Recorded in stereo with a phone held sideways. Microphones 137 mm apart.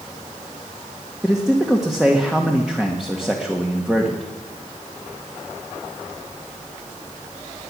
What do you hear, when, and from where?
1.2 s a man speaking: 5° right (ahead or behind), 1.5 m